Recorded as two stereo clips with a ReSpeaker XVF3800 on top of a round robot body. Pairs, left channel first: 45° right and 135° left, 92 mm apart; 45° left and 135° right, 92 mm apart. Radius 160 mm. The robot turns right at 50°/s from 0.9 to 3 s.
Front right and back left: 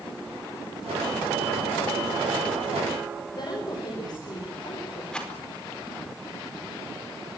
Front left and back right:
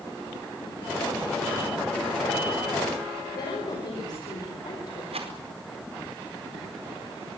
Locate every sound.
3.4 s a woman speaking: straight ahead, 5.5 m
5.1 s a rattle: 125° right, 4.5 m